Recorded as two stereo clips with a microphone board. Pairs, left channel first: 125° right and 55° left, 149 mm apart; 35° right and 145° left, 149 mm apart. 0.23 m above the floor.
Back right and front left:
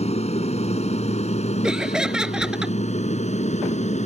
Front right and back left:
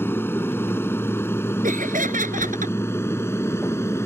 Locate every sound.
0.0 s an aircraft: 105° right
1.6 s laughter: 140° left